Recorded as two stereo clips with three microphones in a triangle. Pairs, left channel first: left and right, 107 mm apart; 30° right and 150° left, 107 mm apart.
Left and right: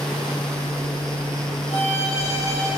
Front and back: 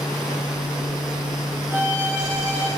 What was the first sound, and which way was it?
A violin, 85° left.